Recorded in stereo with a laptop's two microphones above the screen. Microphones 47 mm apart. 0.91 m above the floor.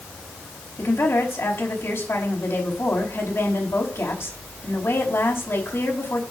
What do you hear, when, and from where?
0.8 s a woman speaking: 65° left (ahead or behind), 5 m